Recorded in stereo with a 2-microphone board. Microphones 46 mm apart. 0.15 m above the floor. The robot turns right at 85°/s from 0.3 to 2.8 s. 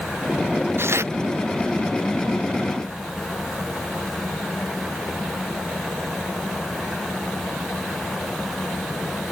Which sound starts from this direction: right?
Tearing paper, at 0.8 s.